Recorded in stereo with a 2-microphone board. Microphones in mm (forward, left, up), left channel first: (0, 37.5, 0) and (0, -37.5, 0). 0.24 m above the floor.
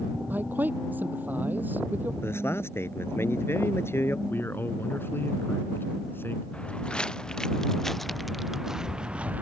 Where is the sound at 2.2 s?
35° left (ahead or behind).